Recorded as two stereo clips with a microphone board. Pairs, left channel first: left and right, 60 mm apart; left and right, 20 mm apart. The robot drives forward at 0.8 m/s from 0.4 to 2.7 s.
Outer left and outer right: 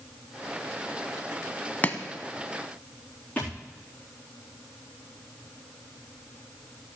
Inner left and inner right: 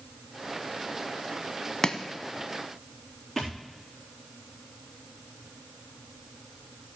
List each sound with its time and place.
1.8 s chopping: 30° left (ahead or behind), 0.9 m
3.4 s a thud: 25° left (ahead or behind), 4 m